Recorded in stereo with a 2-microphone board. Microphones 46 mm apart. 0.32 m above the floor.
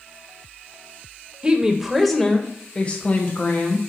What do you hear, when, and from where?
1.4 s a woman speaking: 20° right (ahead or behind), 1.1 m; by 3.8 s 40° left (ahead or behind), 1.8 m